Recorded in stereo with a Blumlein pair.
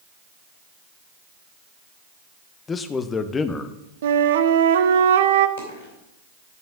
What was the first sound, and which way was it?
A man speaking, 20° left.